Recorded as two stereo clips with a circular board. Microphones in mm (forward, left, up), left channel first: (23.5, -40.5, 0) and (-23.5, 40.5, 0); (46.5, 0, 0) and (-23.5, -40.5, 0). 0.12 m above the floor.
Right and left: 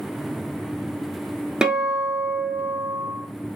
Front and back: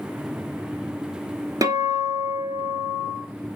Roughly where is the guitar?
Behind.